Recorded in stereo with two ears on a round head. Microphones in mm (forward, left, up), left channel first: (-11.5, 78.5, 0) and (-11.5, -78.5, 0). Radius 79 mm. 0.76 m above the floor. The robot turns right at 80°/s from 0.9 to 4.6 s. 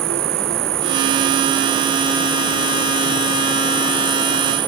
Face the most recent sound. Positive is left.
turn(degrees=-155)